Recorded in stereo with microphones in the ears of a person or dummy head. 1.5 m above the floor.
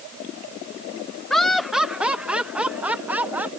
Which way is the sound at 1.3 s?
5° left (ahead or behind).